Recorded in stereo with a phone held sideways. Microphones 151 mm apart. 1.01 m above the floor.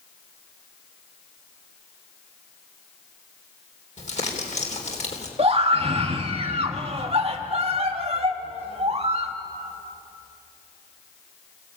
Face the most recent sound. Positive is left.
turn(degrees=-40)  # may be behind; listen again after turning